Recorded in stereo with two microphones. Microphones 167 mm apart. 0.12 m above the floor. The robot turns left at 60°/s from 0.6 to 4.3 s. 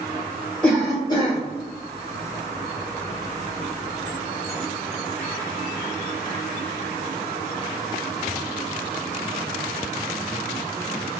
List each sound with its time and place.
0.6 s a cough: 170° left, 1.8 m; by 1.4 s 125° left, 1.8 m